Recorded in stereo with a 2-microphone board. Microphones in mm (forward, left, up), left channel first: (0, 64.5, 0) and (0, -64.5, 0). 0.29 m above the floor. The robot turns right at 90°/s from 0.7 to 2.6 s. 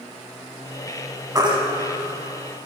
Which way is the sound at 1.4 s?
25° right (ahead or behind).